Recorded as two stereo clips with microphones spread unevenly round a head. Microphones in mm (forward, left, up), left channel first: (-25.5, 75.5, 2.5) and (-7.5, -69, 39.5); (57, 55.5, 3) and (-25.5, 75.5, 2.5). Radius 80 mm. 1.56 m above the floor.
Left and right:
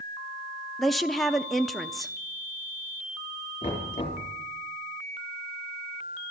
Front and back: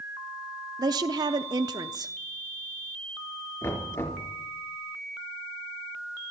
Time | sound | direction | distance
0.8 | a woman speaking | 160° right | 0.5 m
3.6 | knocking | 40° left | 3.5 m